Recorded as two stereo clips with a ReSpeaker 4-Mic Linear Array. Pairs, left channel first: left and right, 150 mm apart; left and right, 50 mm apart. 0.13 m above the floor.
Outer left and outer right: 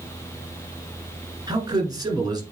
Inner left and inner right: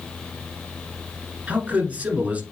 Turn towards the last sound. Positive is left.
turn(degrees=-25)  # may be behind; listen again after turning